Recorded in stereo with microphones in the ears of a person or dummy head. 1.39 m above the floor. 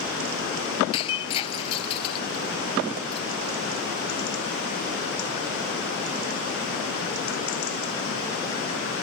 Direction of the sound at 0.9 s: 35° left (ahead or behind).